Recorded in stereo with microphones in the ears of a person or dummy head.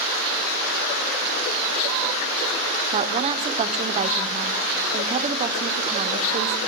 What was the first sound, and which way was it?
A woman speaking, 35° right (ahead or behind).